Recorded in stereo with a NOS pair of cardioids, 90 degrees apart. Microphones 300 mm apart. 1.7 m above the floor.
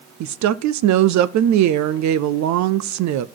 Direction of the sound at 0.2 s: 65° right.